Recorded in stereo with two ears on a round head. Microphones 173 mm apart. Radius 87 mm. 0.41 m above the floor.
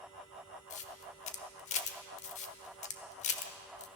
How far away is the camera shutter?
About 1.1 m.